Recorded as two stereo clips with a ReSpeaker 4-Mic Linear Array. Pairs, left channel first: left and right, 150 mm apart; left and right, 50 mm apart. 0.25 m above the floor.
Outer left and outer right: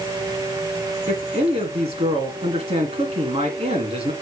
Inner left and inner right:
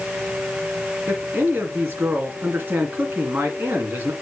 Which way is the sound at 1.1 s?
40° right (ahead or behind).